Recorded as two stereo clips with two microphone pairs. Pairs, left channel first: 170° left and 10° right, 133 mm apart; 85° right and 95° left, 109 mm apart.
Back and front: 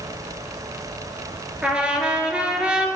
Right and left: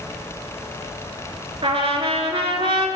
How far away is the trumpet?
About 0.6 m.